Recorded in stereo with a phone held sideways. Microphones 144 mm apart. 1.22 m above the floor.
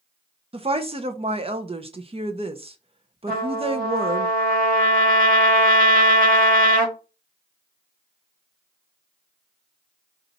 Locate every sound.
0.5 s a woman speaking: 40° right (ahead or behind), 0.5 m
3.3 s a trumpet: 85° right, 1.5 m